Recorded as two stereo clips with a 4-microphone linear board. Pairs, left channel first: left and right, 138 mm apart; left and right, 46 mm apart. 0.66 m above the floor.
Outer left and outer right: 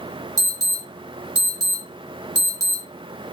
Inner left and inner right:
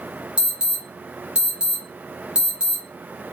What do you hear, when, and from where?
0.4 s an alarm: 25° right (ahead or behind), 0.8 m